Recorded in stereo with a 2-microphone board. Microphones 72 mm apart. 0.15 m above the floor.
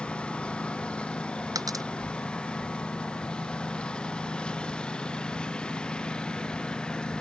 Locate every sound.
0.0 s a lawn mower: 15° left (ahead or behind)
1.6 s a dropped coin: 55° right (ahead or behind)